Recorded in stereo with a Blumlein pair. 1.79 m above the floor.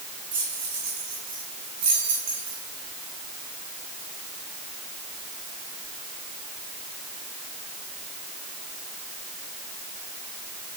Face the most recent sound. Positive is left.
turn(degrees=-55)